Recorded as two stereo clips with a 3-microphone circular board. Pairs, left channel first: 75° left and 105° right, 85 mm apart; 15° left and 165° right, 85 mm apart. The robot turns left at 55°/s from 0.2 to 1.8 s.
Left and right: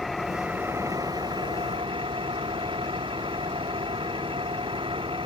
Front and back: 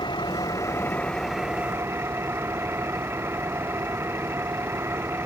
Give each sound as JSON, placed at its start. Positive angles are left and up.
{"t": 0.0, "sound": "an engine running", "azimuth_deg": -15}